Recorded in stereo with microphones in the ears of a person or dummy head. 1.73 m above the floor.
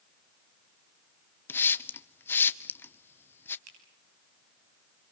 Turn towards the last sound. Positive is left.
turn(degrees=-85)